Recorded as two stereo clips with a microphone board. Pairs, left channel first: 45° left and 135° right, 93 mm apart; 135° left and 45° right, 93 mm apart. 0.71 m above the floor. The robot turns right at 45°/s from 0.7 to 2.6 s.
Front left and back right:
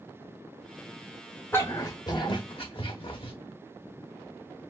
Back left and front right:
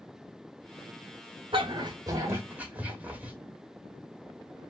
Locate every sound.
1.5 s a dog barking: 20° right, 1.1 m; by 3.3 s 30° left, 1.1 m